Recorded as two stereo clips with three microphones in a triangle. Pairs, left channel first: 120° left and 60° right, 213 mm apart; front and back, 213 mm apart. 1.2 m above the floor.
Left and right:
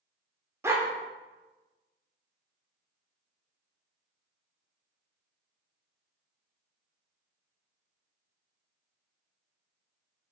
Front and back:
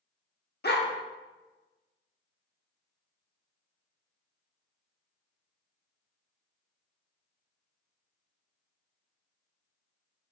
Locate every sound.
0.6 s a dog barking: 15° left, 1.1 m